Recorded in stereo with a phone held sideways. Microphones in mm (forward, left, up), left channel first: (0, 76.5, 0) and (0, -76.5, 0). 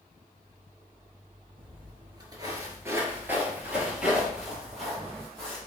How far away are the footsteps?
About 1.3 m.